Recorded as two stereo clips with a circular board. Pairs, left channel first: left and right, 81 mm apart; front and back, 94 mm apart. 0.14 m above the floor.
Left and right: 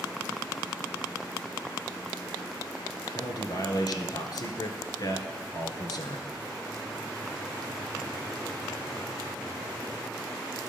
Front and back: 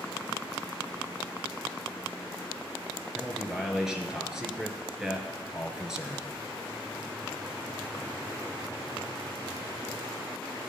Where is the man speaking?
100° left, 1.7 m.